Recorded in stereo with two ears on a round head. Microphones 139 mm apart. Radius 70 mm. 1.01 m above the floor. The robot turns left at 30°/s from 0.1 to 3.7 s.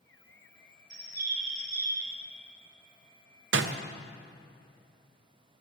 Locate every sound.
0.9 s a bird: 80° right, 1.9 m; by 2.1 s 115° right, 1.9 m
3.5 s a door slam: 80° right, 0.5 m